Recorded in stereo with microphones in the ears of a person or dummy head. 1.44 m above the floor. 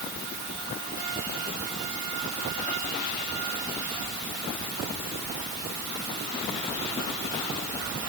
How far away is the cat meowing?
No cat meowing in this recording.